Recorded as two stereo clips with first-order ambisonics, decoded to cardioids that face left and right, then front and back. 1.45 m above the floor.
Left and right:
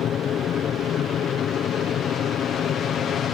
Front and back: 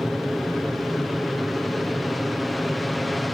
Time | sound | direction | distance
0.0 | an aircraft | 85° left | ?